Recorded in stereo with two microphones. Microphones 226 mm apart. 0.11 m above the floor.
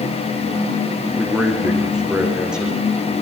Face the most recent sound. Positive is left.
turn(degrees=-5)  # may be behind; listen again after turning